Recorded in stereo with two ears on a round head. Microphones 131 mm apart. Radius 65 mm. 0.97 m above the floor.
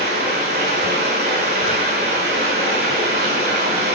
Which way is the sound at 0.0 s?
80° right.